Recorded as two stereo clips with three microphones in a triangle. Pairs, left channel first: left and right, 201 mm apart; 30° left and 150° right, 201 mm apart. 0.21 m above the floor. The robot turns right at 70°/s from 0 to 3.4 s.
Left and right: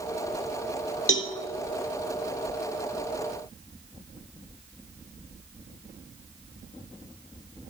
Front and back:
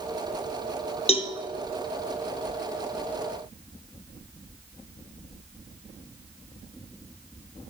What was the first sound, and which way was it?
A cowbell, 85° left.